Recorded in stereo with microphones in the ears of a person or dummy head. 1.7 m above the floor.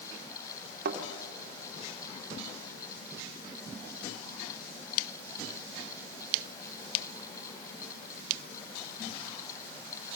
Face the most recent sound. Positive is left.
turn(degrees=-55)  # may be behind; listen again after turning